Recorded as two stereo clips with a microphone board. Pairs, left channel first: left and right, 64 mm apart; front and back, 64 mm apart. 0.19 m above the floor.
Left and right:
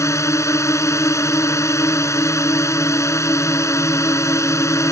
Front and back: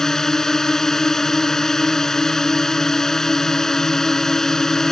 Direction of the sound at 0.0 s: 80° left.